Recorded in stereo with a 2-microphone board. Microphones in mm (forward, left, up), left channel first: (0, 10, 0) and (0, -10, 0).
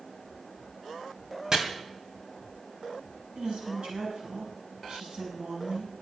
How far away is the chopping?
About 2.5 m.